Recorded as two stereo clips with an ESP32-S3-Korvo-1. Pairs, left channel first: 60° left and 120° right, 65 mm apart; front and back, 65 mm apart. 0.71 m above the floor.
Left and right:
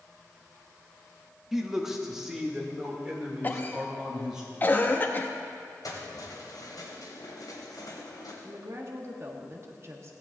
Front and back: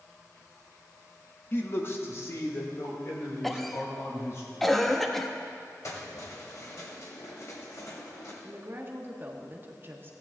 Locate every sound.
1.5 s a man speaking: 35° right, 1.3 m; by 4.4 s 40° right, 3.5 m
3.4 s a cough: 85° left, 1.0 m
5.8 s keys jangling: 35° left, 2.5 m
8.4 s a woman speaking: 145° right, 1.3 m